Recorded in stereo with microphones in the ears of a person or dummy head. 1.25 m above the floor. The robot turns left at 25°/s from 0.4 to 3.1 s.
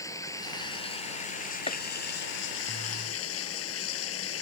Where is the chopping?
35° left (ahead or behind).